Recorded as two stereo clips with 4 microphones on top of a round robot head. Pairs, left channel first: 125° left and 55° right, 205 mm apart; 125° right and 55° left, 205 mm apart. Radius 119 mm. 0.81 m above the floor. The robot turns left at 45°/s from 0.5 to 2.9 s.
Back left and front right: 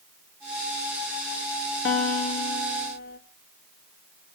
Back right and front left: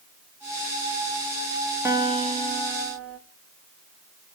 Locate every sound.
1.9 s a guitar: 135° left, 1.7 m; by 3.2 s 85° left, 1.7 m